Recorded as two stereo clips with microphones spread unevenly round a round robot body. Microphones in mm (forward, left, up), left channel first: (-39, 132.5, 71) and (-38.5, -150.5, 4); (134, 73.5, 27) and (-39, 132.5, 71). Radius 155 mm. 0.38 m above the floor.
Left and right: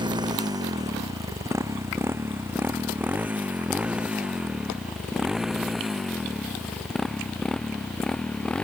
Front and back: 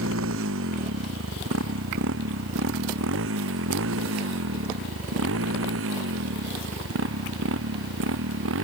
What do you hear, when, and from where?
0.0 s a motorcycle: 165° right; by 8.7 s 175° left